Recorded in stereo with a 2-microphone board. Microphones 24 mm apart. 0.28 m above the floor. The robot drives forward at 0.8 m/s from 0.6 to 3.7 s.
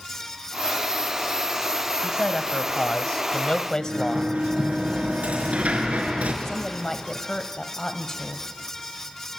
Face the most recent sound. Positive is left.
turn(degrees=20)  # may be behind; listen again after turning